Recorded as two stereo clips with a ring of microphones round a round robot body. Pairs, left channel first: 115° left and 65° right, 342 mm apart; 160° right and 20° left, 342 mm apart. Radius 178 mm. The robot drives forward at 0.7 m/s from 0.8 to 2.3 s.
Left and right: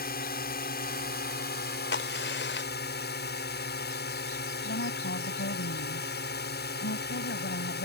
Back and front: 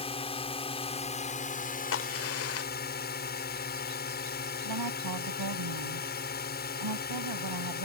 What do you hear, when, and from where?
0.0 s a drone: 145° left; by 7.8 s 155° left
1.9 s a crack: 160° left; by 3.2 s 165° left
4.6 s a woman speaking: 55° left